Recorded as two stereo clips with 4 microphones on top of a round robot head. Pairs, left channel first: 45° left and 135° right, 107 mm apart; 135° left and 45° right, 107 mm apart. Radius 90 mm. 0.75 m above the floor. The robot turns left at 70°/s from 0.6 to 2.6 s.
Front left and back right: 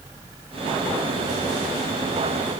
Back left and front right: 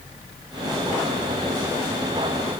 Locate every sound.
Only background noise.